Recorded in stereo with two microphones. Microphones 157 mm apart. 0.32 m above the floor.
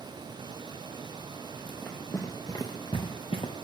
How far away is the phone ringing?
No phone ringing in this recording.